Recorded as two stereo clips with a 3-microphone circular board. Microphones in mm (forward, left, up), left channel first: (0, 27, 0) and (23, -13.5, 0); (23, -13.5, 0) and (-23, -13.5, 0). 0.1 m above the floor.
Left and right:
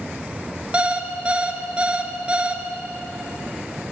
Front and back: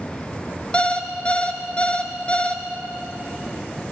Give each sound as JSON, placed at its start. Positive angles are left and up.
{"t": 0.7, "sound": "an alarm clock", "azimuth_deg": -30, "distance_m": 0.9}